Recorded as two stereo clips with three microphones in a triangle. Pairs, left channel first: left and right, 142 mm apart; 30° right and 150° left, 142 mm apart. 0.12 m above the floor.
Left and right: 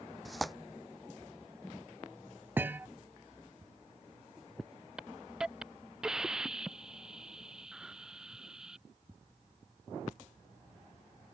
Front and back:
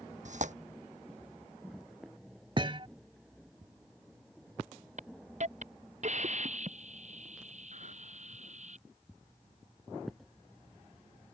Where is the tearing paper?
Straight behind.